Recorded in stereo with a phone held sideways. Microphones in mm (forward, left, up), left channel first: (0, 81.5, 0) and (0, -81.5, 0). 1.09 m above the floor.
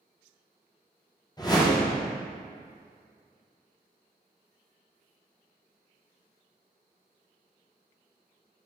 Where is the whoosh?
25° left (ahead or behind), 0.6 m.